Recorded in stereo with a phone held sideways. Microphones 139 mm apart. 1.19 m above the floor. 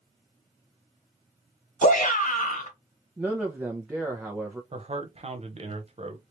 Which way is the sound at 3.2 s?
10° right (ahead or behind).